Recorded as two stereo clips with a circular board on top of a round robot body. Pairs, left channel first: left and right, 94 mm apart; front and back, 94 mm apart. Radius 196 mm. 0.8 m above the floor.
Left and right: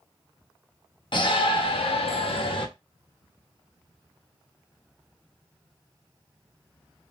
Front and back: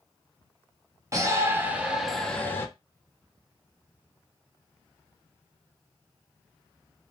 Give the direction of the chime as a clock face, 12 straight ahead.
No chime in this recording.